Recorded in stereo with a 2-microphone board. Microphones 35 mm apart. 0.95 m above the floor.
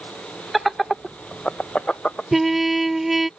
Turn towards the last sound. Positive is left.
turn(degrees=-5)  # may be behind; listen again after turning